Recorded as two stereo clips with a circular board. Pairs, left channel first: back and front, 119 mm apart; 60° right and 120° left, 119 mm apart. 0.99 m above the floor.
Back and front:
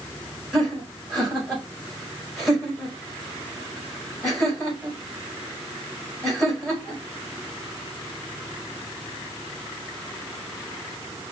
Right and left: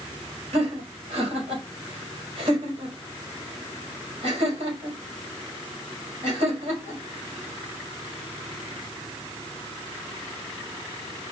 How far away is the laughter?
About 4 m.